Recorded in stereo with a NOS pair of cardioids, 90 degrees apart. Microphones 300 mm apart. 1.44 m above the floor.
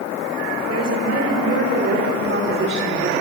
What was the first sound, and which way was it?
A woman speaking, 55° right.